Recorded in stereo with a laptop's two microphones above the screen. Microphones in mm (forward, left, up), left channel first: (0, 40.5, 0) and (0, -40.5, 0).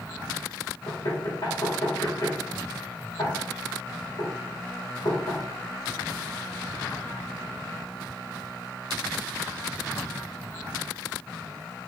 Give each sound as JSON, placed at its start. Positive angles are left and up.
{"t": 0.9, "sound": "knocking", "side_deg": 75, "distance_m": 2.0}